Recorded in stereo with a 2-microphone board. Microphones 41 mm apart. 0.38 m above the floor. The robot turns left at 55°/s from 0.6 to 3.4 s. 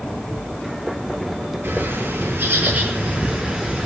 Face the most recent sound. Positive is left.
turn(degrees=-160)